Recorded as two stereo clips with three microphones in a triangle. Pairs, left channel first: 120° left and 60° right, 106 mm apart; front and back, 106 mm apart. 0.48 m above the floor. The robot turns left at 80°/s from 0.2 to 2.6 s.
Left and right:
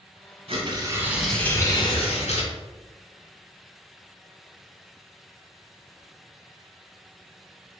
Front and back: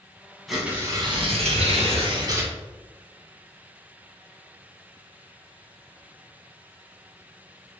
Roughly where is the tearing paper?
Right.